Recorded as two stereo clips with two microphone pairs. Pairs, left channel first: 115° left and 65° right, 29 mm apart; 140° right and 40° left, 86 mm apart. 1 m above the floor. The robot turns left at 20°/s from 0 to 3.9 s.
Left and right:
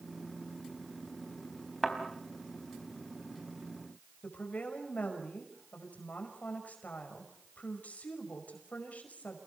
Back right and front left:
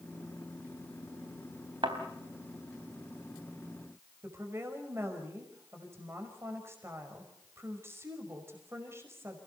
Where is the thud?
35° left, 3.5 m.